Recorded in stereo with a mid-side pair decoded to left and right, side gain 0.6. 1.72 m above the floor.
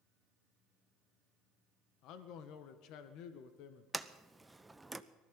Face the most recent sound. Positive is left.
turn(degrees=-10)